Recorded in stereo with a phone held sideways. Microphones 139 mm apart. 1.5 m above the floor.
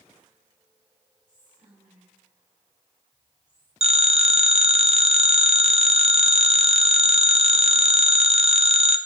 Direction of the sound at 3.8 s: 50° right (ahead or behind).